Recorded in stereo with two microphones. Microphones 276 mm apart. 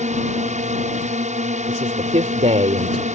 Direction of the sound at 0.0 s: 25° right (ahead or behind).